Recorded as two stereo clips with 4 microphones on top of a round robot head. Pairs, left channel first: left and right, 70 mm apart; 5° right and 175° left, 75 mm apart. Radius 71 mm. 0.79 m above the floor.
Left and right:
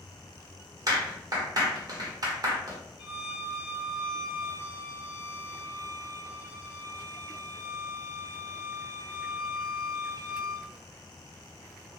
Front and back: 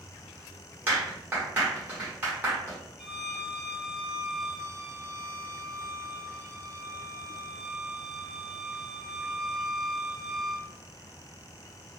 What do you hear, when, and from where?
0.9 s a clap: 115° right, 1.0 m
3.0 s a violin: 80° left, 0.9 m